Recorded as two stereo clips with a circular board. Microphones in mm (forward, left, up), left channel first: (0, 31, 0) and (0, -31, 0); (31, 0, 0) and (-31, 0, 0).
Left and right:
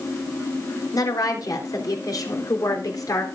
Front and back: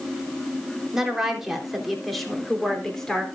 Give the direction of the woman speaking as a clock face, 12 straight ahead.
9 o'clock.